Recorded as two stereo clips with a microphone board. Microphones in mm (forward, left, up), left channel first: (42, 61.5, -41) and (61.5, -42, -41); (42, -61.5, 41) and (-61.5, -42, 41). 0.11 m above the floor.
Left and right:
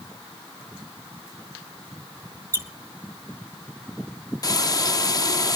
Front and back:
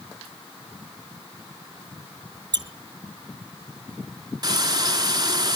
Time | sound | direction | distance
2.5 | a squeak | 140° right | 0.7 m
4.4 | frying | 135° left | 0.8 m